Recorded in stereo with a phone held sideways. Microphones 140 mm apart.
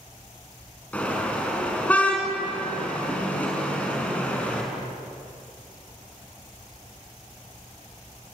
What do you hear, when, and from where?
0.9 s a car horn: 10° left (ahead or behind), 5.5 m